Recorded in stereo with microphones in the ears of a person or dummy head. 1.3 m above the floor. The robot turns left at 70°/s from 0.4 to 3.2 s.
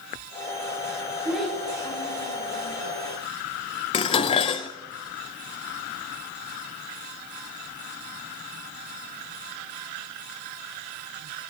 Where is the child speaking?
5° right (ahead or behind), 3.5 m; by 2.8 s 80° left, 3.5 m.